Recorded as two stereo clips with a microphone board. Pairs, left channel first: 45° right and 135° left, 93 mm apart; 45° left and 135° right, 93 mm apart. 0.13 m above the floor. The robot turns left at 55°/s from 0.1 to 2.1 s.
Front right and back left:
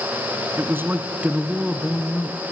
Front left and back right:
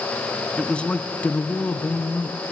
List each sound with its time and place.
0.6 s a man speaking: 115° left, 1.2 m; by 2.4 s 30° left, 1.2 m